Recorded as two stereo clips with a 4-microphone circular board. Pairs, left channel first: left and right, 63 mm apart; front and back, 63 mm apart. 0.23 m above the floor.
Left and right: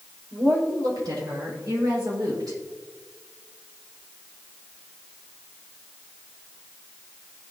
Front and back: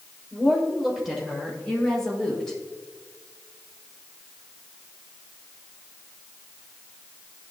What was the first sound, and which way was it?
A woman speaking, 100° right.